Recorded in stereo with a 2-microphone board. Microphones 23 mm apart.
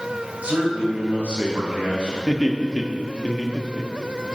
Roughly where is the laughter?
Left.